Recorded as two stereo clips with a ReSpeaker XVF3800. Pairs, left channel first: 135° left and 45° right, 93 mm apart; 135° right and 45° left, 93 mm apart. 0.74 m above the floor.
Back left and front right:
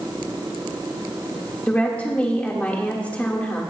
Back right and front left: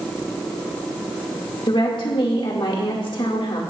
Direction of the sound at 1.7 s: 155° right.